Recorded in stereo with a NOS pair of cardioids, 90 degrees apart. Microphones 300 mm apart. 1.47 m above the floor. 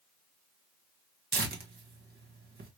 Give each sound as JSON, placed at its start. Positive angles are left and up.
{"t": 1.3, "sound": "tearing paper", "azimuth_deg": -35, "distance_m": 1.2}